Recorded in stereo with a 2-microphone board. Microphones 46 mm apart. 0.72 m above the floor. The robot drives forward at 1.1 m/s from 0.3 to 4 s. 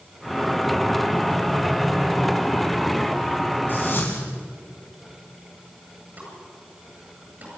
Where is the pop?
40° right (ahead or behind), 8.5 m.